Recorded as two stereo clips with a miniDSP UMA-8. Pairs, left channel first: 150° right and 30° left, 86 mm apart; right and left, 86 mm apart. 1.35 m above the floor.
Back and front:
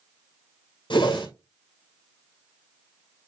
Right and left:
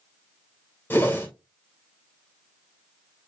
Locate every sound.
0.9 s a whoosh: 155° right, 2 m